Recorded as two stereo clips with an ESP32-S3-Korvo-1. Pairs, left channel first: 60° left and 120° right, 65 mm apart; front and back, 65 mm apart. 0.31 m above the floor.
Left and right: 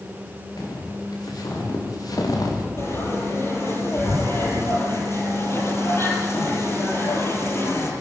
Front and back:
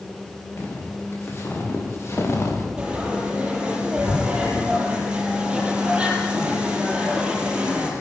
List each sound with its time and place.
0.6 s footsteps: 55° left, 8.5 m; by 2.7 s 45° left, 6 m
2.8 s frying: 105° left, 8 m